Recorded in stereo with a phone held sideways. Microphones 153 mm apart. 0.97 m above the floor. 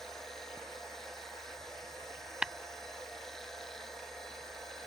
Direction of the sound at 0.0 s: 5° left (ahead or behind).